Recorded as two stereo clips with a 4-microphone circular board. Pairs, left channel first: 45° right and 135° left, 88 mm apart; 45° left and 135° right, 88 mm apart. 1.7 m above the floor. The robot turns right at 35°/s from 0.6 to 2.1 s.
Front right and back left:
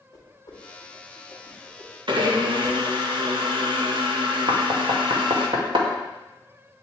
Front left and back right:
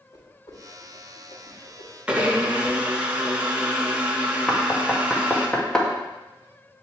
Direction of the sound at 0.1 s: Straight ahead.